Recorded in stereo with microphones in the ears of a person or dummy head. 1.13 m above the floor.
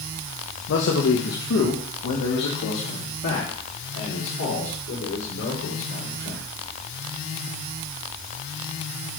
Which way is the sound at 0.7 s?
60° left (ahead or behind).